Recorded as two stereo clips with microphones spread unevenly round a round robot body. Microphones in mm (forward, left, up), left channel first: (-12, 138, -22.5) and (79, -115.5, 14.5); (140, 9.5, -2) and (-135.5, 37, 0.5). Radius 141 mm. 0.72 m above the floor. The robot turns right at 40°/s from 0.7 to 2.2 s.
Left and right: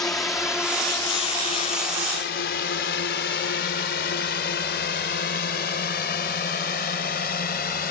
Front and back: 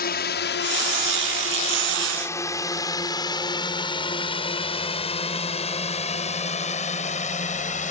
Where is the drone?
30° left; by 7.9 s 55° left.